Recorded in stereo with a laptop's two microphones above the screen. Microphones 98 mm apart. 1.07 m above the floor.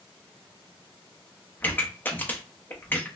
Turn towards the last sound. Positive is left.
turn(degrees=20)  # may be behind; listen again after turning